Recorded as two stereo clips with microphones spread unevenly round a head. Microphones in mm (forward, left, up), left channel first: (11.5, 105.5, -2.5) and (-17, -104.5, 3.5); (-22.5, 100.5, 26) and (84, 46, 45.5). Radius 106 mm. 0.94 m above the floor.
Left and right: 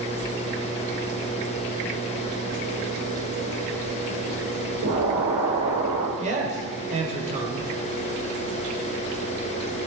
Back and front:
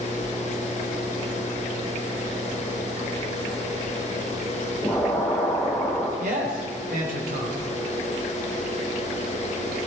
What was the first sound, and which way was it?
An explosion, 115° right.